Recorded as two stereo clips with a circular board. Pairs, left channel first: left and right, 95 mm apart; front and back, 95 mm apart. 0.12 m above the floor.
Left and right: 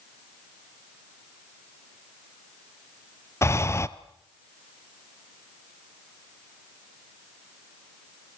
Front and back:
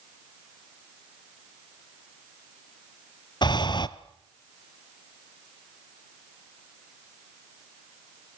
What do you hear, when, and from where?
3.4 s breathing: 30° left, 1.1 m